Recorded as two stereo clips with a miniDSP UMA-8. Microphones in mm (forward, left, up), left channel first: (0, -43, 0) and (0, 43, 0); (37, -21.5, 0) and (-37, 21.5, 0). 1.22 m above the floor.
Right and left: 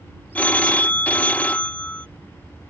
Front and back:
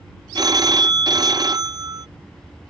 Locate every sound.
0.3 s a phone ringing: 165° right